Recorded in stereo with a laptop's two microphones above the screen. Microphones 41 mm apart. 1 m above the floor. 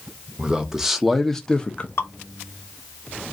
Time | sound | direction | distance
0.4 | a man speaking | 20° right (ahead or behind) | 1.0 m
2.0 | dripping | 70° left (ahead or behind) | 0.9 m